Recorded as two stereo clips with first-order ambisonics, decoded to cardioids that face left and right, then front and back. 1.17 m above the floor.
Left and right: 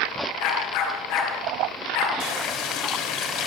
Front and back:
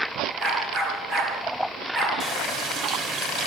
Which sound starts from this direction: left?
A dog barking, at 0.4 s.